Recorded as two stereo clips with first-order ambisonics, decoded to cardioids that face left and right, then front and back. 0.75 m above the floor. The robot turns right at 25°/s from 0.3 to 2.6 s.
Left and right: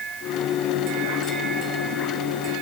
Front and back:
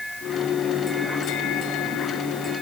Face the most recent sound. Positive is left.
No sound to turn to.